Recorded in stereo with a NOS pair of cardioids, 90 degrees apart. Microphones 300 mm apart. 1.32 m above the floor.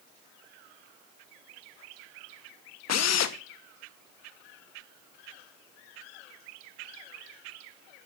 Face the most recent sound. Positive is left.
turn(degrees=65)